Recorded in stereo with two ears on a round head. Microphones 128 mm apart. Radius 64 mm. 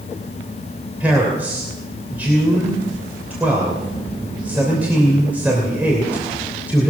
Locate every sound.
1.0 s a man speaking: 10° right (ahead or behind), 3 m